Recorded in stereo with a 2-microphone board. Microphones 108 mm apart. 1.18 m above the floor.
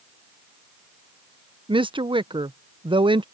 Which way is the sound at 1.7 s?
50° right (ahead or behind).